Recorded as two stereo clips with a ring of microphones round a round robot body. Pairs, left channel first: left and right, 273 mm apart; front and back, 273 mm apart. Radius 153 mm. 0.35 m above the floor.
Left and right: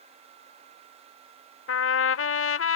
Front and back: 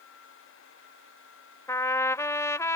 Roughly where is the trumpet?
Left.